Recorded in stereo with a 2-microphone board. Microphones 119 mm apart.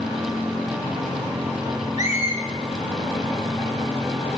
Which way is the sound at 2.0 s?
75° left (ahead or behind).